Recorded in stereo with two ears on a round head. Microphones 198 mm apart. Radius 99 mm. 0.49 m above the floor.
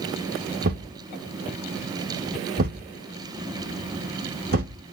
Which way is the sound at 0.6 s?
45° right (ahead or behind).